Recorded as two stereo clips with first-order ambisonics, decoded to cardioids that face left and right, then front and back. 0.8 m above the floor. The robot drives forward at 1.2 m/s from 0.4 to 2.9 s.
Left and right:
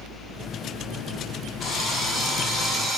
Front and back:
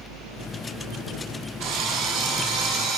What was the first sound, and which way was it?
A drill, 155° left.